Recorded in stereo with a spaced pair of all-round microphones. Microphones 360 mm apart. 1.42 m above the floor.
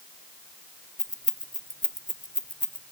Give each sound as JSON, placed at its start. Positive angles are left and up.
{"t": 1.0, "sound": "keys jangling", "side_deg": 20, "distance_m": 1.6}